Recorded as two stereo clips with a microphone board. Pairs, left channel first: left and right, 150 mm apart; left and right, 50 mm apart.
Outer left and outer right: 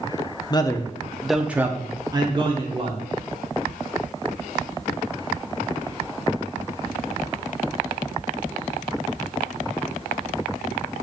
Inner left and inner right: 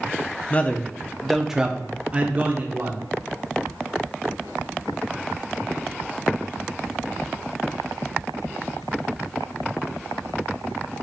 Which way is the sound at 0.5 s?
30° left (ahead or behind).